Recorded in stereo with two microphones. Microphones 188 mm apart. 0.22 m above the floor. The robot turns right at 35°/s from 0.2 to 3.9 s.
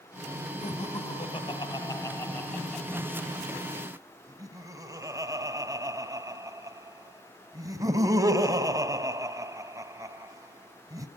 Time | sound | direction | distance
0.6 | laughter | 35° left (ahead or behind) | 1.5 m